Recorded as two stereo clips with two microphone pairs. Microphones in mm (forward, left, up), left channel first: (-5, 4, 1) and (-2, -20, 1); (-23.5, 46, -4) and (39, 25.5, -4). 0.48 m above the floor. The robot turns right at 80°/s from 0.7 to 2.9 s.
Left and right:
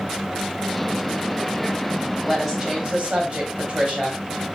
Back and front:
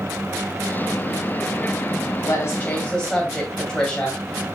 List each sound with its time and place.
2.2 s a woman speaking: 170° right, 3 m; by 4.2 s 120° right, 3 m